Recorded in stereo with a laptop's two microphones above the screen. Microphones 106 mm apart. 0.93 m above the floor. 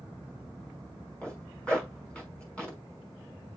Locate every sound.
1.2 s a zipper: 10° left (ahead or behind), 5.5 m